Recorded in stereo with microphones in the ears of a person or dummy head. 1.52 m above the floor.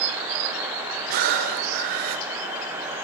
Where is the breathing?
55° right (ahead or behind), 3 m.